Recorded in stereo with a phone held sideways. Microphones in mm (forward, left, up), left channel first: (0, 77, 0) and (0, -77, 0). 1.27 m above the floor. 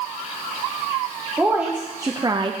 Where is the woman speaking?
10° right (ahead or behind), 1.2 m; by 2.5 s 35° right (ahead or behind), 0.5 m.